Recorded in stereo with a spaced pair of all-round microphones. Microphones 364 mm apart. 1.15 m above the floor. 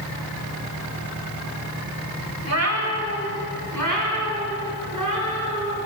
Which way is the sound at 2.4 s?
40° right (ahead or behind).